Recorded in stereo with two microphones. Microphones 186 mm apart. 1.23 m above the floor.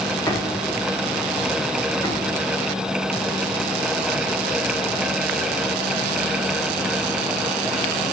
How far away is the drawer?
About 1.5 m.